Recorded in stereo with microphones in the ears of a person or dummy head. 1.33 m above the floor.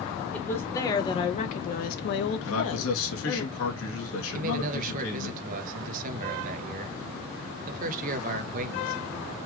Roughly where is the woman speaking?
Centre.